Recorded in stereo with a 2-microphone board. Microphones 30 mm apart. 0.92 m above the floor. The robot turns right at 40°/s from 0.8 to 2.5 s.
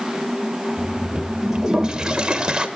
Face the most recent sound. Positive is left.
turn(degrees=-25)  # may be behind; listen again after turning